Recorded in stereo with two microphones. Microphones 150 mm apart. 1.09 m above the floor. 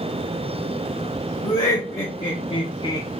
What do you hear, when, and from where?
1.4 s laughter: 40° left (ahead or behind), 1.3 m; by 3.1 s 20° left (ahead or behind), 0.5 m